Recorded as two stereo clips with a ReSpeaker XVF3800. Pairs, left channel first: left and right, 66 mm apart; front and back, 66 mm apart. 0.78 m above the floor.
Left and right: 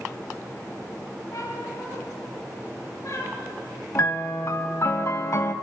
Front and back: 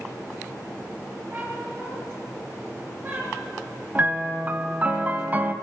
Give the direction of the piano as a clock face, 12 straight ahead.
8 o'clock.